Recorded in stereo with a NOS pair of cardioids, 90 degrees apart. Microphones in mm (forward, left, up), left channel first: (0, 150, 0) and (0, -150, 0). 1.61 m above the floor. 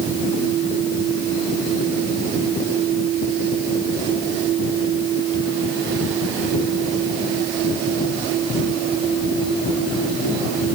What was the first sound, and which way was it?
Only background noise.